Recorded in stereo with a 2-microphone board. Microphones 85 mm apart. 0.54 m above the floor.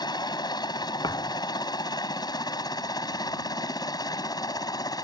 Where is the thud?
55° left (ahead or behind).